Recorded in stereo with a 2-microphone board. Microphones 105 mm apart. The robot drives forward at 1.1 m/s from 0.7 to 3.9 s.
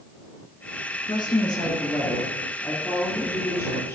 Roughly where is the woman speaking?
Left.